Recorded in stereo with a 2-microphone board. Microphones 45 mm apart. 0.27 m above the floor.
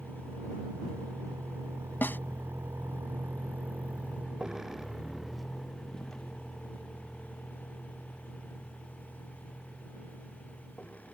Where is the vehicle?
75° right (ahead or behind); by 11.1 s 35° left (ahead or behind).